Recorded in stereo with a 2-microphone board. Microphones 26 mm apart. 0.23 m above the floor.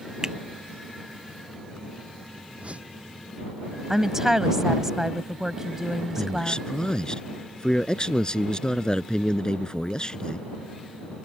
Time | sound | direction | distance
0.2 | a finger snap | 30° right (ahead or behind) | ?
2.6 | a whoosh | 55° right (ahead or behind) | ?
3.9 | a woman speaking | 20° right (ahead or behind) | ?
6.2 | a man speaking | 30° left (ahead or behind) | ?